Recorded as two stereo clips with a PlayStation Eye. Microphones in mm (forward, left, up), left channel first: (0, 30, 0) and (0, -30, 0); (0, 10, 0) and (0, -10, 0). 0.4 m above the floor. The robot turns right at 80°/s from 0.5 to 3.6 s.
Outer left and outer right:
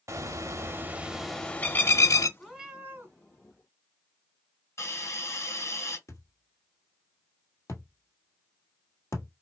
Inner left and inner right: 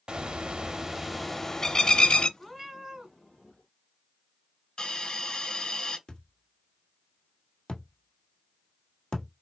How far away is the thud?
About 1.5 m.